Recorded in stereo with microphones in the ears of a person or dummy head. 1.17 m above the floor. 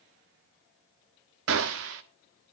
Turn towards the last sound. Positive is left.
turn(degrees=-60)  # may be behind; listen again after turning